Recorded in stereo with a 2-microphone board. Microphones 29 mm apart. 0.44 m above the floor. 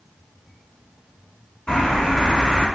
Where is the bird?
35° left (ahead or behind), 2.5 m.